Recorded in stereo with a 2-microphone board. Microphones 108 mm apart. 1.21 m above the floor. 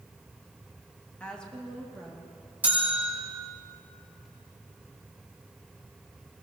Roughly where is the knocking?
I don't hear knocking.